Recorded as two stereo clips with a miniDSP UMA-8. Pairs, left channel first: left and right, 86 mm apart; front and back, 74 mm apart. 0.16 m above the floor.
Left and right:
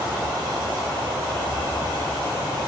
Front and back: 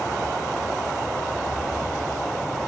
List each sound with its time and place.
1.3 s footsteps: 110° right, 7 m; by 2.7 s 105° right, 8 m